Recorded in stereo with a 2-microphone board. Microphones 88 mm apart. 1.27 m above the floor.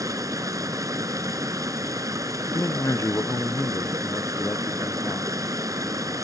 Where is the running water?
40° right (ahead or behind).